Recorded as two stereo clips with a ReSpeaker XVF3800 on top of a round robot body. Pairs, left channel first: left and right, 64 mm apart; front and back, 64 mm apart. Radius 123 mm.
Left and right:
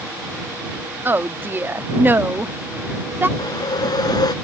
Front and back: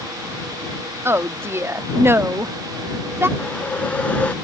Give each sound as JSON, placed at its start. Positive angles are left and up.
{"t": 1.1, "sound": "a woman speaking", "azimuth_deg": -140}
{"t": 3.4, "sound": "a whoosh", "azimuth_deg": 70}